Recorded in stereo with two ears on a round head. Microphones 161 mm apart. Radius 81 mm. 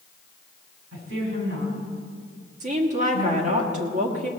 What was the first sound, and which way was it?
A woman speaking, 80° right.